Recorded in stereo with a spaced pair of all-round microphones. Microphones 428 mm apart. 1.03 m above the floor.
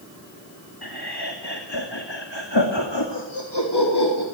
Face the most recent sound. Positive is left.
turn(degrees=60)  # may be behind; listen again after turning